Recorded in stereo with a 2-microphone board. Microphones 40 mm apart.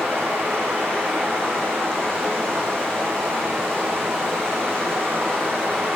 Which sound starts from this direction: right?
Running water, at 0.0 s.